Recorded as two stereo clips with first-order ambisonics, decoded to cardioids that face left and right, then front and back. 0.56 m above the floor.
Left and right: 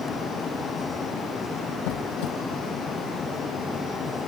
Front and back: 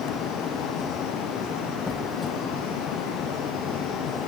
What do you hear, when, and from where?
1.9 s a squeak: 80° left